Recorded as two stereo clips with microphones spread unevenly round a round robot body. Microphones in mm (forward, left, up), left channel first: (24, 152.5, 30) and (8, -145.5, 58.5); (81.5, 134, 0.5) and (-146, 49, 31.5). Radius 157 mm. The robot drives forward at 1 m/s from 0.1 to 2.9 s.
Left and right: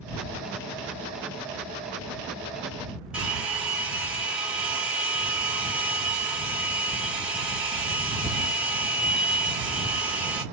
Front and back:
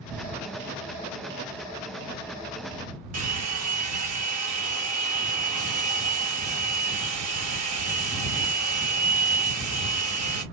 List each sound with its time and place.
3.1 s a hair dryer: straight behind, 2 m